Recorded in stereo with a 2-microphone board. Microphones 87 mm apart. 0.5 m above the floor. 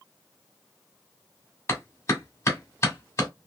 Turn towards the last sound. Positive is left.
turn(degrees=30)  # may be behind; listen again after turning